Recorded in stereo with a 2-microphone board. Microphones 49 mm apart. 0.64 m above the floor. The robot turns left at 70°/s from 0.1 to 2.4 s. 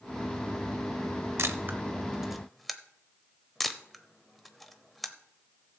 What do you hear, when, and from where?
1.4 s a camera shutter: 65° right (ahead or behind), 0.9 m; by 5.8 s centre (ahead or behind), 0.9 m